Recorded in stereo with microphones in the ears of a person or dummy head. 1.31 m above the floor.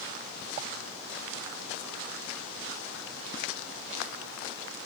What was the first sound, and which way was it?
Only background noise.